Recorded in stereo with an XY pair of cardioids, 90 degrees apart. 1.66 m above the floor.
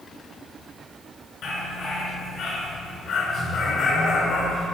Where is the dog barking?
70° left, 6 m.